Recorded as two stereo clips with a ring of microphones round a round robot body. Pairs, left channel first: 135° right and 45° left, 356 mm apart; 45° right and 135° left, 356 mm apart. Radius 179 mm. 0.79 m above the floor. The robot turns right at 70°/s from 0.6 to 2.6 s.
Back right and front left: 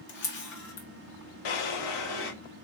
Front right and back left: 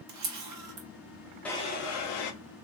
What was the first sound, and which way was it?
A camera shutter, 170° left.